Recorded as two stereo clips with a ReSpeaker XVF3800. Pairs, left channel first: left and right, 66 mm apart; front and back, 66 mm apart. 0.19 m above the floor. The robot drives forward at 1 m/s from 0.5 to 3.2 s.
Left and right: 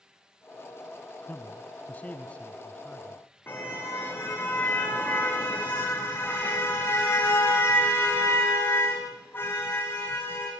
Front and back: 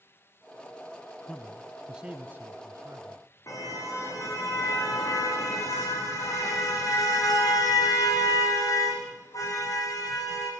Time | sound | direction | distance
1.3 | a man speaking | 55° left | 1.3 m
3.5 | a car horn | 35° left | 6 m